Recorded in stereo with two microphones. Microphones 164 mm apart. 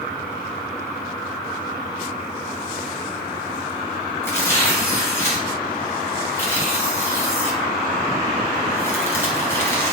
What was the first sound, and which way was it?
Tearing paper, 15° left (ahead or behind).